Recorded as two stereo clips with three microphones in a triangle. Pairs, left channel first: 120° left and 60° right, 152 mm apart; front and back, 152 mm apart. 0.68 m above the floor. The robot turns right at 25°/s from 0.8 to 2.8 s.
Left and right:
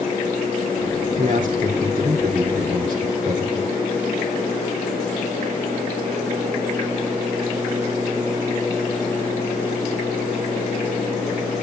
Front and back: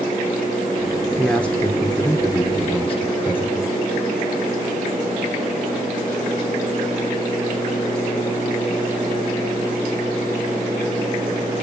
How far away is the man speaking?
About 2.5 m.